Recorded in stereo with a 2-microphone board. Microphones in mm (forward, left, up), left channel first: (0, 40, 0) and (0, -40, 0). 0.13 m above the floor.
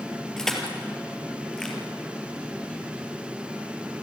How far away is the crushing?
About 3 m.